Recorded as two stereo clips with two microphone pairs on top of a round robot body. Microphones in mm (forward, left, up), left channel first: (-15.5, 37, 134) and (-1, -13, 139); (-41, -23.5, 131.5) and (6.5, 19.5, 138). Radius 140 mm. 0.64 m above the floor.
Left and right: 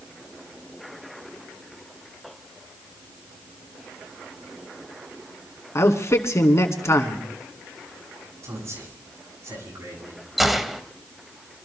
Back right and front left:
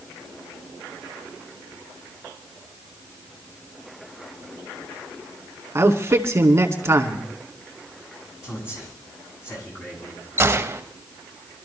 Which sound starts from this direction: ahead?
A gunshot, at 10.4 s.